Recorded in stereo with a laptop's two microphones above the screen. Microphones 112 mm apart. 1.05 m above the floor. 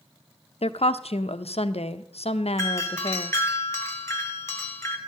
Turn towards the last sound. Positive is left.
turn(degrees=25)  # may be behind; listen again after turning